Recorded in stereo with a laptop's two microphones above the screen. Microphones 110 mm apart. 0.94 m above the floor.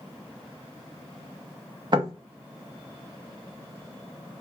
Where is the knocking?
45° right (ahead or behind), 0.6 m.